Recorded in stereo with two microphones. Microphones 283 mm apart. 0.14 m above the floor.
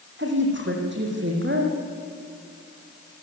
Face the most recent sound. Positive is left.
turn(degrees=-40)  # may be behind; listen again after turning